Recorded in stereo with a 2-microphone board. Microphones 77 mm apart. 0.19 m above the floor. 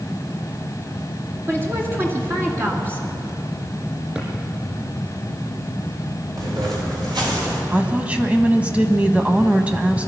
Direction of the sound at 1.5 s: 30° right (ahead or behind).